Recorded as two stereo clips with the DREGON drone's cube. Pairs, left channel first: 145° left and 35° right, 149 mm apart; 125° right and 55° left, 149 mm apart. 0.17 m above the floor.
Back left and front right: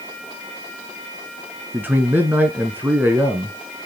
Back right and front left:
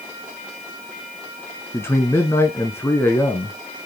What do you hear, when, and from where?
1.7 s a man speaking: 85° right, 1.1 m